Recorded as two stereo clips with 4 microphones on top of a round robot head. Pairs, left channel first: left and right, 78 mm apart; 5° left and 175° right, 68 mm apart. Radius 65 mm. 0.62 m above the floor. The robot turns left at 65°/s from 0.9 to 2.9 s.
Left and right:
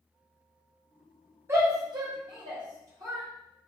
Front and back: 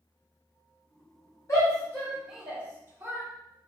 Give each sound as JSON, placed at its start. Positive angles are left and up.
{"t": 1.5, "sound": "a shout", "azimuth_deg": -35, "distance_m": 1.4}